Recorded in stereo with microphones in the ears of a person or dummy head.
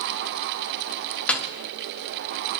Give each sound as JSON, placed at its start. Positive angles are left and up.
{"t": 1.3, "sound": "a snare drum", "side_deg": 0, "distance_m": 0.7}